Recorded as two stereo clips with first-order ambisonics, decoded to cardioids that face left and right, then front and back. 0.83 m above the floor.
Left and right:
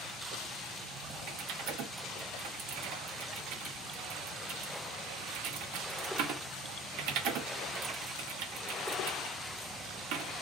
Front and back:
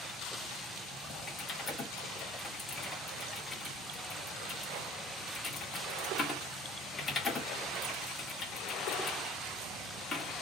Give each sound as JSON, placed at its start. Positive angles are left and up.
{"t": 1.3, "sound": "typing on a keyboard", "azimuth_deg": -75, "distance_m": 1.7}